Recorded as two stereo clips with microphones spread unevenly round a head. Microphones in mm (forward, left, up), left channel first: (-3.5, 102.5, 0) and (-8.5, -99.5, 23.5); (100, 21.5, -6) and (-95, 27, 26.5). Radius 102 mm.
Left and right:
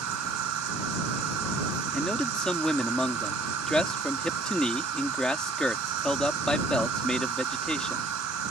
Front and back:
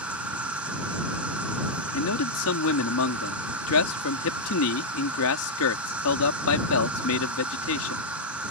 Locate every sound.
0.0 s an insect: 100° right
1.9 s a man speaking: straight ahead